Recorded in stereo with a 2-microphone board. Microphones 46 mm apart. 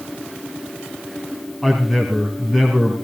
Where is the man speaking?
Centre (ahead or behind), 2.5 m.